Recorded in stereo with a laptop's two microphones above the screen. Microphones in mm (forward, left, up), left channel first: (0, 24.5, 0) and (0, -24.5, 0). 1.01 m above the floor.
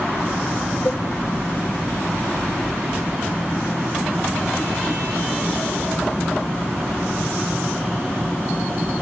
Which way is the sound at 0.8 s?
75° left (ahead or behind).